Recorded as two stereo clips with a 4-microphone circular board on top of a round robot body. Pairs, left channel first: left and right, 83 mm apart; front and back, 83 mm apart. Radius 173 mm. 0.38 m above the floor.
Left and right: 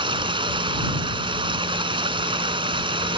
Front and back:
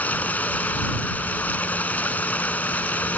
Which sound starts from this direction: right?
Running water, at 0.0 s.